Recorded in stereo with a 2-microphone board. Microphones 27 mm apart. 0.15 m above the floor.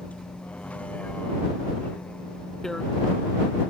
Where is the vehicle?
60° left (ahead or behind).